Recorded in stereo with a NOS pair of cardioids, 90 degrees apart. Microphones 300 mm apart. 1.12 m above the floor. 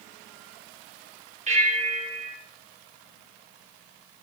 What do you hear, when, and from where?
1.5 s a bell: 25° right, 3.5 m